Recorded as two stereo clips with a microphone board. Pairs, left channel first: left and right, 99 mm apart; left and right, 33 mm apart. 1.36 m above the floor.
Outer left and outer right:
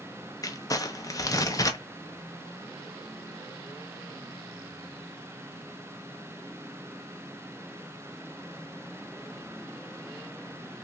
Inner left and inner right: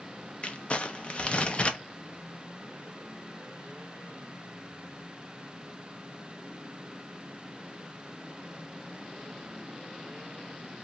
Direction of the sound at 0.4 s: 35° left (ahead or behind).